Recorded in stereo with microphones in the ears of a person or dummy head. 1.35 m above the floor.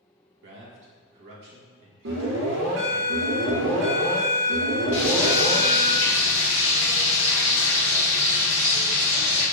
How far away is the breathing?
No breathing in this recording.